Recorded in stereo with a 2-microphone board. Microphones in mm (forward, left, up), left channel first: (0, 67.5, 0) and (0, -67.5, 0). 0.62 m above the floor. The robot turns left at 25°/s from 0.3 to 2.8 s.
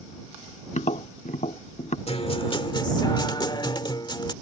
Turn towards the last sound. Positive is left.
turn(degrees=35)  # may be behind; listen again after turning